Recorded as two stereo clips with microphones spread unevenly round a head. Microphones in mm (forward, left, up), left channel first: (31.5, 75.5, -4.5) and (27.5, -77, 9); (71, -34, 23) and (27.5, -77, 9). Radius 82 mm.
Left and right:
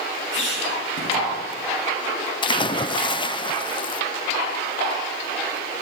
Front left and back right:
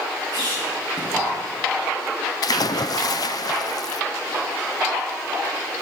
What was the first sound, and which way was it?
A squeak, 90° left.